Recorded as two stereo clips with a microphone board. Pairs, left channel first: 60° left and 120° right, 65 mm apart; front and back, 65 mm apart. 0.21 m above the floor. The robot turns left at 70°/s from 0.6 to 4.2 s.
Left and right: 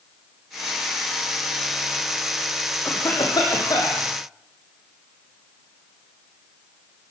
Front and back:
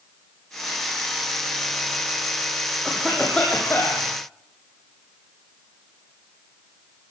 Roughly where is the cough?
Left.